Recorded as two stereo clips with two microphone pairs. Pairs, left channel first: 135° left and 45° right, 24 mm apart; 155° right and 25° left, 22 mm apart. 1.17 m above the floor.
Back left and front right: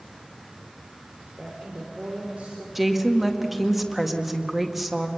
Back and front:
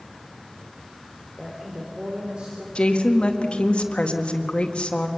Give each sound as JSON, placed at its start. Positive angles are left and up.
{"t": 1.4, "sound": "a woman speaking", "azimuth_deg": -30, "distance_m": 3.5}
{"t": 2.8, "sound": "a woman speaking", "azimuth_deg": -125, "distance_m": 2.0}